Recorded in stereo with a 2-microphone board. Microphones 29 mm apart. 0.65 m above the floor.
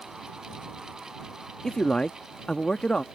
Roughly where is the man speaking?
Left.